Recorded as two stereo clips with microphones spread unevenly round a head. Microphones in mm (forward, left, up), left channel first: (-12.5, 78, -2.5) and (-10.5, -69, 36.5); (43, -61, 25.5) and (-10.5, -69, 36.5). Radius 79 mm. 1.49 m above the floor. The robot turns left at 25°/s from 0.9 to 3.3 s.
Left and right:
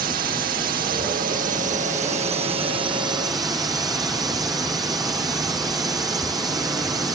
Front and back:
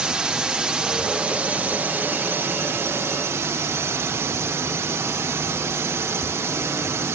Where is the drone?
100° right; by 7.2 s 160° right.